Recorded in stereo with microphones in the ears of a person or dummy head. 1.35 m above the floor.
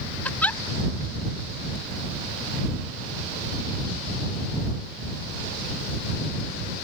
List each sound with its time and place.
0.2 s a giggle: 10° left (ahead or behind)